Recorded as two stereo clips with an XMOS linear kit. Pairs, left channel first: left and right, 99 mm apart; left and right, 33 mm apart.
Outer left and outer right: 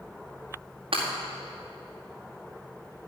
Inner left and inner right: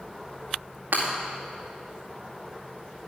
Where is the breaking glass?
60° right (ahead or behind), 4.5 m.